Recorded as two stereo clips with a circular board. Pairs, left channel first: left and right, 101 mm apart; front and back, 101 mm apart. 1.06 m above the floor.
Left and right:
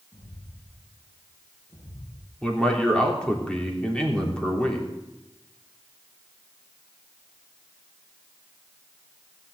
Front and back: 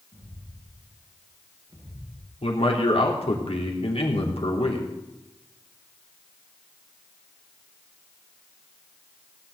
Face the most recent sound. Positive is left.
turn(degrees=10)